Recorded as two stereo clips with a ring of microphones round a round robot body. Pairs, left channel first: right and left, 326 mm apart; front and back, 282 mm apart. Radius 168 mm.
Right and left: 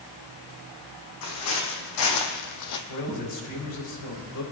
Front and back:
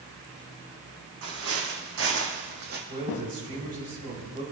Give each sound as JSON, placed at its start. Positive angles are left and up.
{"t": 1.2, "sound": "footsteps", "azimuth_deg": -130, "distance_m": 1.9}
{"t": 2.9, "sound": "a man speaking", "azimuth_deg": -115, "distance_m": 3.0}